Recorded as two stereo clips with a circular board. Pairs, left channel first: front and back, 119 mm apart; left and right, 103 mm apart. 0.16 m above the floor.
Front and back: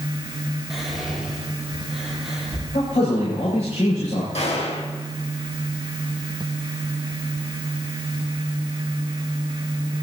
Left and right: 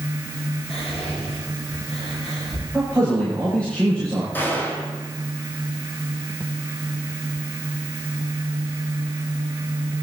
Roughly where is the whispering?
Left.